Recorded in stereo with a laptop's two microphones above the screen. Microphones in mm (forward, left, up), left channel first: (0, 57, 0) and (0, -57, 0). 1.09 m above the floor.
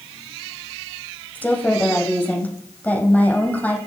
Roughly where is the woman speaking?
Centre.